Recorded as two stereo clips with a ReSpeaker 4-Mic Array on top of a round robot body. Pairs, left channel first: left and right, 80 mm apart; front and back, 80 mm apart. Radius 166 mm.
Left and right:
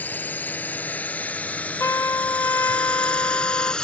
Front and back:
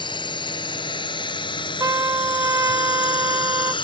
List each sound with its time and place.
0.0 s a drone: 20° left; by 3.9 s 10° left
1.8 s a trumpet: 140° left